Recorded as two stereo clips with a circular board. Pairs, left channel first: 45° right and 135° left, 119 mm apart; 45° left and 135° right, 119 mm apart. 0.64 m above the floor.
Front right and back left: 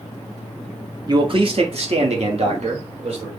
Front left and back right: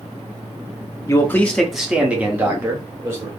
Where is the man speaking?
95° left, 0.7 m; by 3.3 s 160° left, 1.9 m.